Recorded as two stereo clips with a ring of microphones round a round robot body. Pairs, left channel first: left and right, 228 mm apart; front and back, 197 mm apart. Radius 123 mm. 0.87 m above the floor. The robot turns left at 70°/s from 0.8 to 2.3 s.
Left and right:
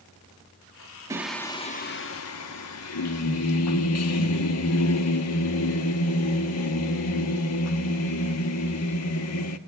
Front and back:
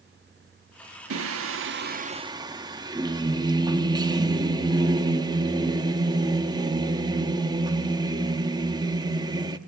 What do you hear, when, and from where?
1.1 s singing: 165° right, 1.0 m; by 9.6 s 110° left, 1.0 m